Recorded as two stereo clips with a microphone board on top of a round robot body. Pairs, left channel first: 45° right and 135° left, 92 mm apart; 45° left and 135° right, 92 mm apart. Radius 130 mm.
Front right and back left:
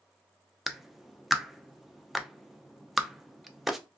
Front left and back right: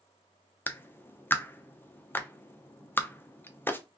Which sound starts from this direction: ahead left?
A clap, at 0.7 s.